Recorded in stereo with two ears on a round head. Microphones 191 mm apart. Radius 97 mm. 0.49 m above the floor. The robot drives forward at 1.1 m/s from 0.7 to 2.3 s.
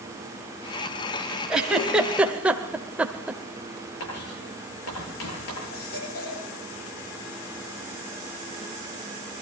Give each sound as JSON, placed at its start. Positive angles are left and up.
{"t": 1.5, "sound": "a giggle", "side_deg": -5, "distance_m": 1.9}
{"t": 4.0, "sound": "writing", "side_deg": 75, "distance_m": 9.5}
{"t": 5.7, "sound": "a baby crying", "side_deg": 75, "distance_m": 7.5}